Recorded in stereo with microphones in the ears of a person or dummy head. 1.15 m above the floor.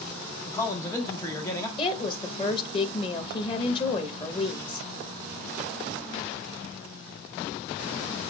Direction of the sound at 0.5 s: 20° left (ahead or behind).